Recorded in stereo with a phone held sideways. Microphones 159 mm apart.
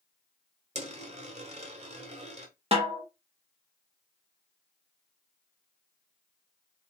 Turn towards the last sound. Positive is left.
turn(degrees=-40)  # may be behind; listen again after turning